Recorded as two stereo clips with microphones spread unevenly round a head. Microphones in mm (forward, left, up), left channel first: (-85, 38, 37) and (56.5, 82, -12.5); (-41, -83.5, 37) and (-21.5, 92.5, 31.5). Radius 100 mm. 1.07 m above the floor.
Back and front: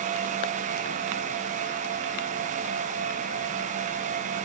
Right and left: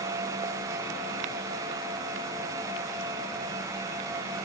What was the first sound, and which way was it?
Only background noise.